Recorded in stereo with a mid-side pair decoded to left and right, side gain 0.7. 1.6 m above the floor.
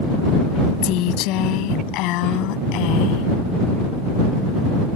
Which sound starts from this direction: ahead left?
A woman speaking, at 0.8 s.